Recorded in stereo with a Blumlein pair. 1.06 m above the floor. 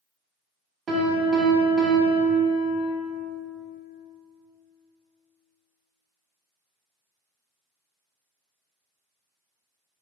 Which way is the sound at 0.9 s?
20° right.